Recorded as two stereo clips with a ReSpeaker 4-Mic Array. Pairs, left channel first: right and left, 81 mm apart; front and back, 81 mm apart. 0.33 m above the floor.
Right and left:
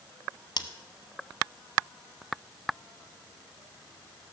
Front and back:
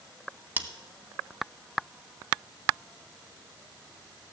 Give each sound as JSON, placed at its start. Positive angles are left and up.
{"t": 0.6, "sound": "scissors", "azimuth_deg": -110, "distance_m": 0.8}